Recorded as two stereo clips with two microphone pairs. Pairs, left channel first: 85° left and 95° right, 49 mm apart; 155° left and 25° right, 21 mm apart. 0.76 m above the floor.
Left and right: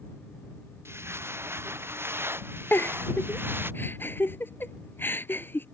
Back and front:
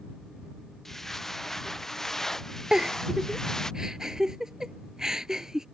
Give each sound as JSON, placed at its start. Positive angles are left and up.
{"t": 0.8, "sound": "footsteps", "azimuth_deg": -125}
{"t": 2.7, "sound": "a giggle", "azimuth_deg": 40}